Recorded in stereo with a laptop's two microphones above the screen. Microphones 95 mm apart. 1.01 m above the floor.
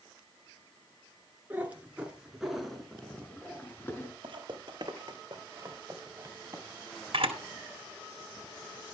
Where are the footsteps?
60° right (ahead or behind), 2.5 m; by 6.6 s 25° right (ahead or behind), 4 m.